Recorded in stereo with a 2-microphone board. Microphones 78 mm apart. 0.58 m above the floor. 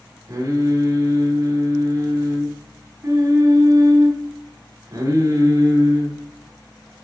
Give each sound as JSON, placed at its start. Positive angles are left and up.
{"t": 0.3, "sound": "singing", "side_deg": -40, "distance_m": 1.7}